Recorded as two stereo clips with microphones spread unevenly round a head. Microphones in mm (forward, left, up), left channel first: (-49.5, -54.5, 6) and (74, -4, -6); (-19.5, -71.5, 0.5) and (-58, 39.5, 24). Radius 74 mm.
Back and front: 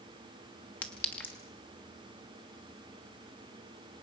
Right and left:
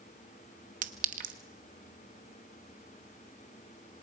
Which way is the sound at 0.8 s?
120° left.